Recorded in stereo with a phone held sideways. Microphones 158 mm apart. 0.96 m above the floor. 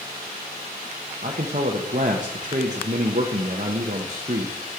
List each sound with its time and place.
1.2 s a man speaking: 50° right (ahead or behind), 0.8 m